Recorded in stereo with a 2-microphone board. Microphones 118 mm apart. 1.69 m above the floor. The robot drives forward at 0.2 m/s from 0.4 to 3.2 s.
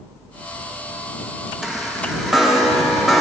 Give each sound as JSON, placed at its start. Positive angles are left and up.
{"t": 1.6, "sound": "a chime", "side_deg": 0, "distance_m": 0.7}